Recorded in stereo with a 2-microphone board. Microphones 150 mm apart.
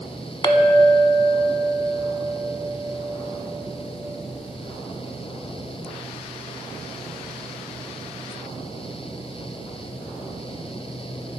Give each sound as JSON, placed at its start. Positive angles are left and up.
{"t": 0.4, "sound": "a clink", "side_deg": 30, "distance_m": 0.6}